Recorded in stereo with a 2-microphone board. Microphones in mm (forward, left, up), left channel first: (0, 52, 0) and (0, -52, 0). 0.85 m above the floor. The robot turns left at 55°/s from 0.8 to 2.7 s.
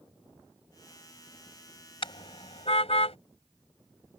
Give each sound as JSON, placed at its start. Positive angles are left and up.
{"t": 2.0, "sound": "a car horn", "side_deg": 60}